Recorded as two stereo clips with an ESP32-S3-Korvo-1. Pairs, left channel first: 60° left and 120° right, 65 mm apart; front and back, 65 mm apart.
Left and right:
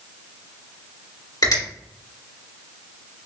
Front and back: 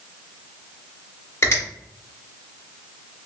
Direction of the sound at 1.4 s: 50° left.